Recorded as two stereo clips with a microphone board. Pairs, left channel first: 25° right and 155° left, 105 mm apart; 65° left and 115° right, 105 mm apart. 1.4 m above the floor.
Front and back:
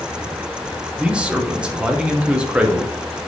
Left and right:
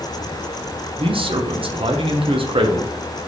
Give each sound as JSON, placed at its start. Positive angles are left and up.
{"t": 1.0, "sound": "a man speaking", "azimuth_deg": -125, "distance_m": 0.6}